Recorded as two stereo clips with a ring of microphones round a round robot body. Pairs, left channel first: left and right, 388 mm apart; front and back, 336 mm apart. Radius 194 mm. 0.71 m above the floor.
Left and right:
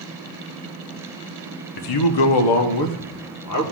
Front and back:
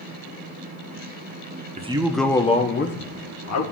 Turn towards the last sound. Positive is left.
turn(degrees=40)